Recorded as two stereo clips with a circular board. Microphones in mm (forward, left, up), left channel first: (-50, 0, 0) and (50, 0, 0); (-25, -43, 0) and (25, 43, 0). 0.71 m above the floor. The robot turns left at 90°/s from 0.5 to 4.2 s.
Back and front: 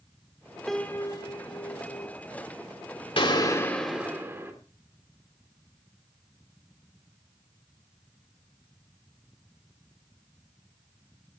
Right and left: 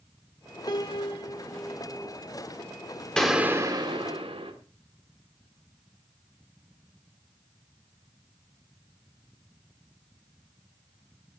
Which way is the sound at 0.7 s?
90° right.